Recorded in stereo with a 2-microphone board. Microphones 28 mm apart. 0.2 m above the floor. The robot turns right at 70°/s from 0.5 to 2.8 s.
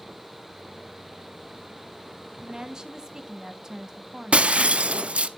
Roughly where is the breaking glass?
Right.